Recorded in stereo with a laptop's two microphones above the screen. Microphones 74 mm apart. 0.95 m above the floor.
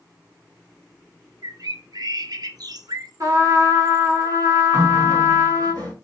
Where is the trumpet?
55° right (ahead or behind), 1.5 m.